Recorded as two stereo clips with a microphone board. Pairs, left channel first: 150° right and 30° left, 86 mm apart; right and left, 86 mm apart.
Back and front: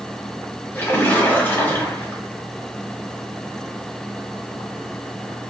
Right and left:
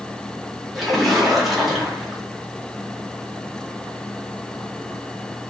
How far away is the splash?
About 1.6 m.